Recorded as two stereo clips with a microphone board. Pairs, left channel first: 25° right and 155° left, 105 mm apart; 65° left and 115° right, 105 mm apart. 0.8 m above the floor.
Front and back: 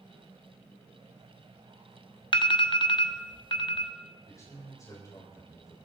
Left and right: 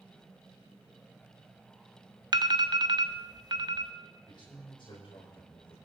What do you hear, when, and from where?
2.3 s an alarm: 65° right, 0.7 m
4.3 s a man speaking: 30° left, 3.5 m